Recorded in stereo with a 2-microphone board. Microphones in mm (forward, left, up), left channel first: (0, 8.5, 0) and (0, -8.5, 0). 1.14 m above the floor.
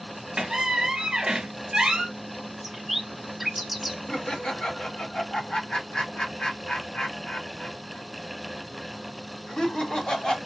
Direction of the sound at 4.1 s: 55° left (ahead or behind).